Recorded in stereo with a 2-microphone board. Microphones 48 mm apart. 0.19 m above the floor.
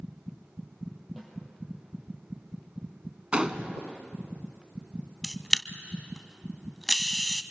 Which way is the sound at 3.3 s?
20° right (ahead or behind).